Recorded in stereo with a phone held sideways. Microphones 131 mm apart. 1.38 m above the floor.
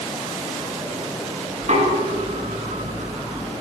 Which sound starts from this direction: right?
Knocking, at 1.6 s.